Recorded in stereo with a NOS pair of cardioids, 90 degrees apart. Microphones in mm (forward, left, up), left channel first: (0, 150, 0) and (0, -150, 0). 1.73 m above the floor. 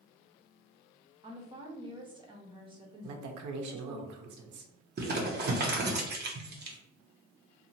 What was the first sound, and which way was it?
A woman speaking, 15° right.